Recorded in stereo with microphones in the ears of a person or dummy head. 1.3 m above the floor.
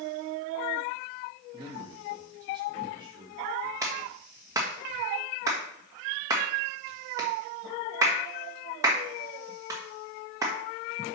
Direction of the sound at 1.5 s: 15° right (ahead or behind).